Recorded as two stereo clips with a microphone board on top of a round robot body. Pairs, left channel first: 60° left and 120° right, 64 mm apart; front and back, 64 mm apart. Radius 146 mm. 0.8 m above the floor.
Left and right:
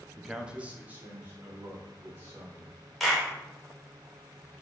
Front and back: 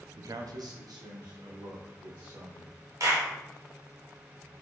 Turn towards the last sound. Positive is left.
turn(degrees=150)